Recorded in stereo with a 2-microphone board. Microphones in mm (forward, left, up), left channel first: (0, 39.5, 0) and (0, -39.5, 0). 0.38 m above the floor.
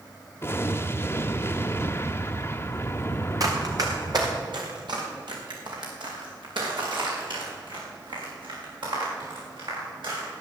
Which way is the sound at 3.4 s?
50° right (ahead or behind).